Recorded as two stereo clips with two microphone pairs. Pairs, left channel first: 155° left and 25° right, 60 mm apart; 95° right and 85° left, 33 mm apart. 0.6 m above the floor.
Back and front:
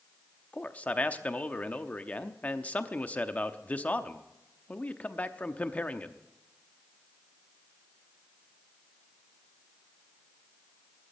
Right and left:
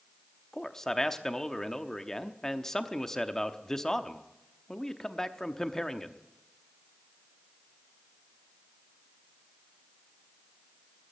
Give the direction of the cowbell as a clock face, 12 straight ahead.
No cowbell in this recording.